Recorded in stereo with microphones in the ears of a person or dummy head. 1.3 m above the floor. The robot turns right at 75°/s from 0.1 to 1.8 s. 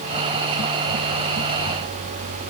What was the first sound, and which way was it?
Only background noise.